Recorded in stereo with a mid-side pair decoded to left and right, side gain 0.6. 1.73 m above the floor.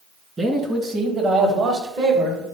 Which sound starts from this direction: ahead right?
A man speaking, at 0.4 s.